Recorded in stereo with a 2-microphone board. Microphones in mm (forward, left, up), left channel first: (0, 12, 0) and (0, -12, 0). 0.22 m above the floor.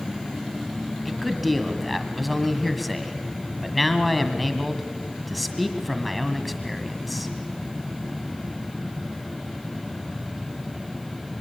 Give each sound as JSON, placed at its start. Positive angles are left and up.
{"t": 1.1, "sound": "a man speaking", "side_deg": 0, "distance_m": 1.5}